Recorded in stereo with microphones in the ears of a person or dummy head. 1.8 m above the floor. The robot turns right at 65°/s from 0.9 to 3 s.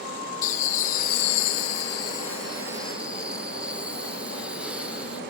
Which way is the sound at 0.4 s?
45° left.